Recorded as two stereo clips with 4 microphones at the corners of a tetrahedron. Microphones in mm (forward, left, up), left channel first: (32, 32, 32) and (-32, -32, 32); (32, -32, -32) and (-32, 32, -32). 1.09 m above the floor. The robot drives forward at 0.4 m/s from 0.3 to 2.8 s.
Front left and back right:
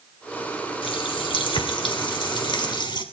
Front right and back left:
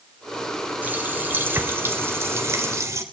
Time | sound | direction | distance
0.8 | a running tap | 65° left | 3.5 m